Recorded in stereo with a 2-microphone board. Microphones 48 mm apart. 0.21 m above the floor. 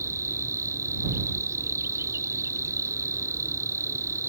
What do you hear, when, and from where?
0.0 s an insect: 75° right (ahead or behind)